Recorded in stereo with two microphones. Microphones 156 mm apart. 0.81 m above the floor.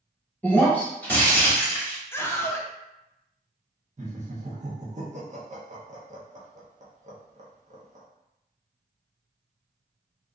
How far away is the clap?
I don't hear a clap.